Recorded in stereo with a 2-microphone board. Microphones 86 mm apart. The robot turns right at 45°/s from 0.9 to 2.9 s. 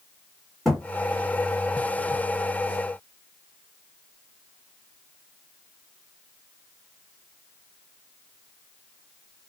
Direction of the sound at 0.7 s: Centre (ahead or behind).